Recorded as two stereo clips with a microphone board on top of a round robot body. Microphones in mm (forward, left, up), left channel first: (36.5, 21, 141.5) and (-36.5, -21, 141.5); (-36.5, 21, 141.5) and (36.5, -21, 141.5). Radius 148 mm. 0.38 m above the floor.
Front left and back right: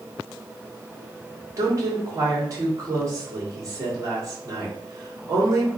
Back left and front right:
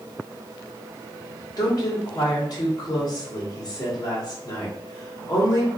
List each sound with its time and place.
1.6 s a woman speaking: 170° left, 1.9 m